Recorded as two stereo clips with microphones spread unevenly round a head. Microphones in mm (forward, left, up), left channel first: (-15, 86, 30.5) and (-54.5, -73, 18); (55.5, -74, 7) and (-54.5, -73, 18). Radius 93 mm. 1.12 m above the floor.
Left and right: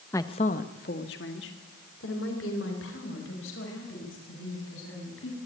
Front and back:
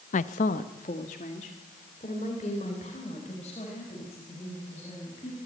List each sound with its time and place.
0.1 s a woman speaking: straight ahead, 0.7 m; by 5.4 s 55° left, 7.5 m